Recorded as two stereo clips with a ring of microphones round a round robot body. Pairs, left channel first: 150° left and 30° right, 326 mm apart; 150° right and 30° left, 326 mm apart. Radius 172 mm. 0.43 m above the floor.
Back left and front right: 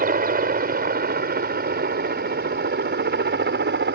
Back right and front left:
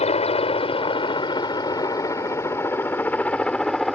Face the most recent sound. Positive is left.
turn(degrees=-60)